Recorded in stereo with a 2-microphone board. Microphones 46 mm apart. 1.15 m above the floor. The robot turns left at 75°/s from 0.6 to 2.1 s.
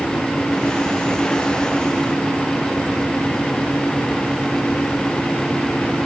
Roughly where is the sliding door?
I don't hear a sliding door.